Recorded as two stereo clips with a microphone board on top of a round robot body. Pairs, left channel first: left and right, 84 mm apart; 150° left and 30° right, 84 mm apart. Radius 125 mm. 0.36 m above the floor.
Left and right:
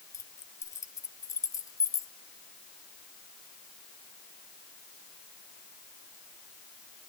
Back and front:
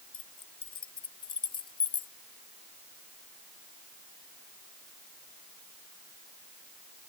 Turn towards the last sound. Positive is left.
turn(degrees=140)